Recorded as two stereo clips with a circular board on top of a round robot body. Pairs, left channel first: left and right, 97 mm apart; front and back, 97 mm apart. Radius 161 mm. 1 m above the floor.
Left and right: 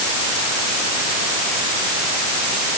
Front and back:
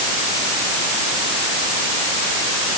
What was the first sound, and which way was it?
Only background noise.